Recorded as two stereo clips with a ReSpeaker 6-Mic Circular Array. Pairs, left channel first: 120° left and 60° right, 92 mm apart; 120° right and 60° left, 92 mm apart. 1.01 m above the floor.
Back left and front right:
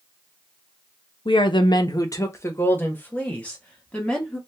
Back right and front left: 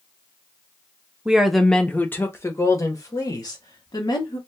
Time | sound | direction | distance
1.2 | a woman speaking | 140° left | 0.7 m